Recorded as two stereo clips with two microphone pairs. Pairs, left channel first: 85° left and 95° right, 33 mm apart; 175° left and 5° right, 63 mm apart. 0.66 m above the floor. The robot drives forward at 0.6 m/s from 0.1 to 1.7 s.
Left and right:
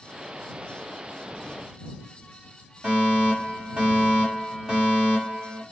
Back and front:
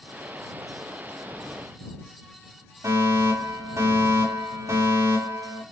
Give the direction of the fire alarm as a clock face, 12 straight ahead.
1 o'clock.